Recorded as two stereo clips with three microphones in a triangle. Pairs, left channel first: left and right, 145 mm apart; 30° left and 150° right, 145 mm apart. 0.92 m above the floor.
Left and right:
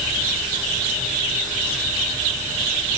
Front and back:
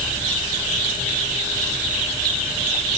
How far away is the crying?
No crying in this recording.